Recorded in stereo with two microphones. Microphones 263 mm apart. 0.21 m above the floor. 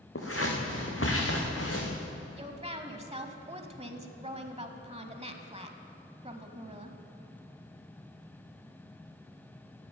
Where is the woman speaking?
25° right (ahead or behind), 1.0 m.